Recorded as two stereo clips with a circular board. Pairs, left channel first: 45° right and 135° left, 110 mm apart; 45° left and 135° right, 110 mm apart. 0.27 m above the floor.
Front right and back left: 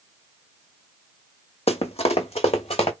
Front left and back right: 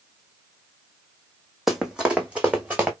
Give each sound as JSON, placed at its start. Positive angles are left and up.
{"t": 1.7, "sound": "running footsteps", "azimuth_deg": -50, "distance_m": 0.8}